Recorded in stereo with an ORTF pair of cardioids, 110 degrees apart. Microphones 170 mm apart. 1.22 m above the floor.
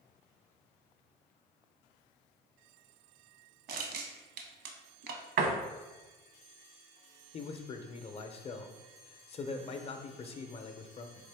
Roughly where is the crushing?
Ahead right.